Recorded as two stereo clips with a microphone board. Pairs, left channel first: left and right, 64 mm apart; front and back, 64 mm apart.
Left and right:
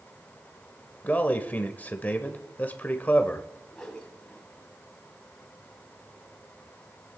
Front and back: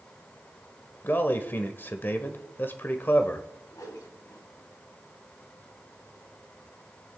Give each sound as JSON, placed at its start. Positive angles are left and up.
{"t": 1.0, "sound": "a man speaking", "azimuth_deg": 35, "distance_m": 1.3}
{"t": 3.7, "sound": "a whoosh", "azimuth_deg": 10, "distance_m": 2.5}